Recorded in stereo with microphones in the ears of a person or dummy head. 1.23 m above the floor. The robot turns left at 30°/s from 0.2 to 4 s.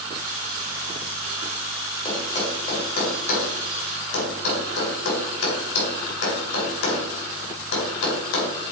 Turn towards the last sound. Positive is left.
turn(degrees=75)  # may be behind; listen again after turning